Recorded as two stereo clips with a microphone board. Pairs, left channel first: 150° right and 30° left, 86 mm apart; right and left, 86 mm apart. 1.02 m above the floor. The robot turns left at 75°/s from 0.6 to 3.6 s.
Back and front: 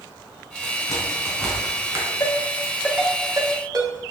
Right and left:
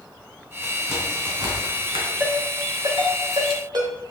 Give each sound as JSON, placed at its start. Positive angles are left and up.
{"t": 0.6, "sound": "a crack", "azimuth_deg": -170, "distance_m": 4.0}
{"t": 2.2, "sound": "a ringtone", "azimuth_deg": 160, "distance_m": 3.5}